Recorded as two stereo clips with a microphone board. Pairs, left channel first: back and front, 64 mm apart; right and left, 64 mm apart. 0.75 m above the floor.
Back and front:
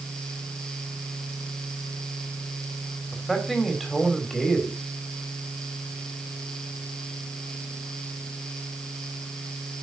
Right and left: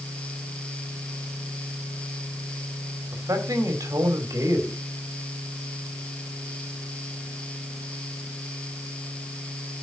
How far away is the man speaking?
About 2.5 m.